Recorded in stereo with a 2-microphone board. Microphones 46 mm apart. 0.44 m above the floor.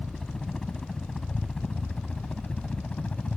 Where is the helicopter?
10° left (ahead or behind); by 3.4 s 30° left (ahead or behind).